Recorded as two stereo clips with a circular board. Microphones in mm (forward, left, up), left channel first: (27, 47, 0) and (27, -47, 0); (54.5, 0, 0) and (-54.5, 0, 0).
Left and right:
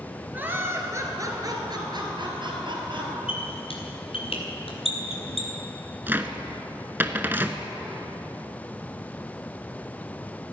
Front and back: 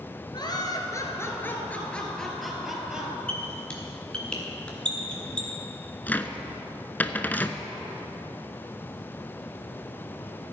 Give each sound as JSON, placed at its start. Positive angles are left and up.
{"t": 0.3, "sound": "laughter", "azimuth_deg": -25, "distance_m": 2.5}
{"t": 3.3, "sound": "a squeak", "azimuth_deg": 80, "distance_m": 3.0}
{"t": 6.1, "sound": "a cupboard door", "azimuth_deg": -50, "distance_m": 0.8}